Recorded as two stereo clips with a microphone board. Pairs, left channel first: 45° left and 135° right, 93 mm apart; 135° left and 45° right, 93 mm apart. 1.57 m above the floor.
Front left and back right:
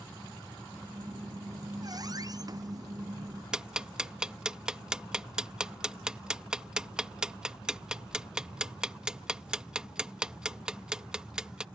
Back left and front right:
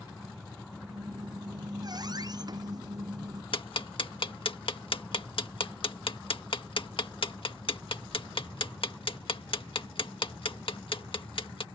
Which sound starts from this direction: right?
A squeak, at 0.9 s.